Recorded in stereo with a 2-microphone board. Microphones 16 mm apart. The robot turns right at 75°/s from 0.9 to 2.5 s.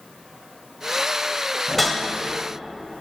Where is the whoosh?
5° right (ahead or behind), 1.1 m; by 2.0 s 20° left (ahead or behind), 1.1 m.